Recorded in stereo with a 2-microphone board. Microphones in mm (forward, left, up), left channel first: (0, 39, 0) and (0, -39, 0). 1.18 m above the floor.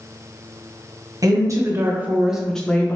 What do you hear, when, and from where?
1.2 s a woman speaking: 50° right (ahead or behind), 0.8 m; by 3.0 s 25° left (ahead or behind), 0.6 m